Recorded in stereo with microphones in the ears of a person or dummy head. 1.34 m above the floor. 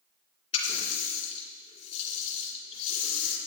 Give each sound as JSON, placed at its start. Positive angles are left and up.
{"t": 0.5, "sound": "a running tap", "side_deg": 35, "distance_m": 3.0}